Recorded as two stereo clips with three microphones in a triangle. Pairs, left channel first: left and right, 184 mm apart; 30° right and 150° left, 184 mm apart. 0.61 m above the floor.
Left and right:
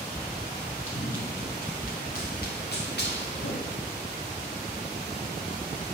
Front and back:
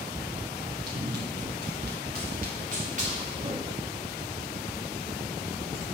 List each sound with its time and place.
0.9 s running footsteps: 135° left, 5 m; by 3.9 s 90° left, 3.5 m